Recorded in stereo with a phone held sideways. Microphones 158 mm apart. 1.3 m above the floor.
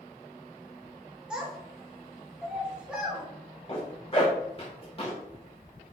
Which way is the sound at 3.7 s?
35° left (ahead or behind).